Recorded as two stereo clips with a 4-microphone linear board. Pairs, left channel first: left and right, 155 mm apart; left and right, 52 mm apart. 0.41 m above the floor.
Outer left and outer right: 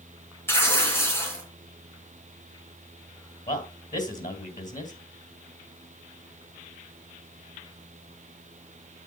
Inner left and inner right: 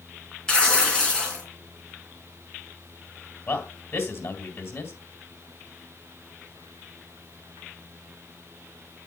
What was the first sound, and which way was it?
Tearing paper, 15° left (ahead or behind).